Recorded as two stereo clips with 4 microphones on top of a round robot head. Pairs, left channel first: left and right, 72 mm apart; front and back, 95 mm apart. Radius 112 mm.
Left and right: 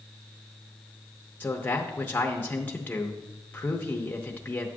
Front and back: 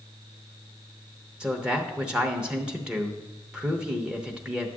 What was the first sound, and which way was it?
A man speaking, 110° left.